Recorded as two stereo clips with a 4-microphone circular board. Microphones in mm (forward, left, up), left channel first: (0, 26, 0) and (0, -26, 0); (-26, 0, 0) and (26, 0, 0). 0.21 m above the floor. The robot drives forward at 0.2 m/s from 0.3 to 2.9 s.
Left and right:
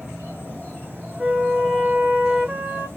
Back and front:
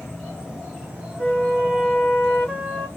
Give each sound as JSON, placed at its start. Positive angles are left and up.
{"t": 0.0, "sound": "an insect", "azimuth_deg": -100, "distance_m": 2.0}
{"t": 1.2, "sound": "a flute", "azimuth_deg": -125, "distance_m": 1.3}